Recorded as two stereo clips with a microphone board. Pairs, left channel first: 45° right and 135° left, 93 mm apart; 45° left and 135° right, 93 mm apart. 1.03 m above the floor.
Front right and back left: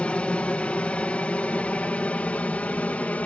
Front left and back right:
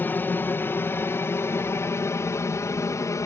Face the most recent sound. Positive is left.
turn(degrees=20)